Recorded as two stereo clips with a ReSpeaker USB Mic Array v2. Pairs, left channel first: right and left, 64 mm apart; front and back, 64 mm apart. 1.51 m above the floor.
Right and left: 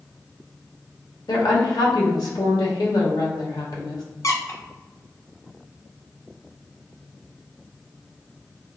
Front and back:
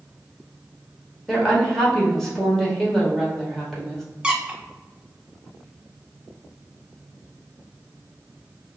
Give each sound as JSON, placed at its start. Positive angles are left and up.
{"t": 1.3, "sound": "a woman speaking", "azimuth_deg": -85, "distance_m": 1.4}
{"t": 4.2, "sound": "a squeak", "azimuth_deg": -110, "distance_m": 0.7}